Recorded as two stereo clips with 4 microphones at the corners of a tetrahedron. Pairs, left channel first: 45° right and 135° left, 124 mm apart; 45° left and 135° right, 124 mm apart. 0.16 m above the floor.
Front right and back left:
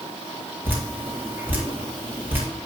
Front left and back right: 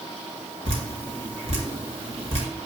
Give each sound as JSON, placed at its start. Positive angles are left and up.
{"t": 0.7, "sound": "dripping", "azimuth_deg": -150, "distance_m": 3.0}